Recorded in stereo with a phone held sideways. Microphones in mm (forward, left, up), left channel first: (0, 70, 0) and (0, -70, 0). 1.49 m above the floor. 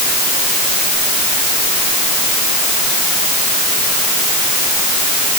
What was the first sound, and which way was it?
Only background noise.